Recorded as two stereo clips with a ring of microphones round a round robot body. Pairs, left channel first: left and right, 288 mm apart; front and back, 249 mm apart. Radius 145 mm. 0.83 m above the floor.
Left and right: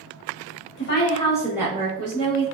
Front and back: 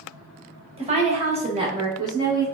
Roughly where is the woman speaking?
Behind left.